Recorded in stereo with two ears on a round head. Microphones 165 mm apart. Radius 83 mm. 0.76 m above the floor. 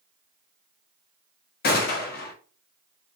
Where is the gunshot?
55° left (ahead or behind), 0.6 m.